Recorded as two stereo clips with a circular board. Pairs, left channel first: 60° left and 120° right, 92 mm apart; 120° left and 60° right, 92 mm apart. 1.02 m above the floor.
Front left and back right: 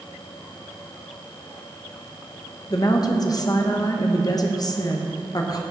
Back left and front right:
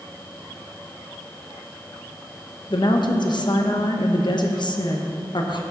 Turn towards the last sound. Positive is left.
turn(degrees=95)